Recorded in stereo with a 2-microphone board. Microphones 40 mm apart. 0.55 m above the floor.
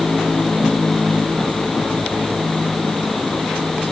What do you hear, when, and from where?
Only background noise.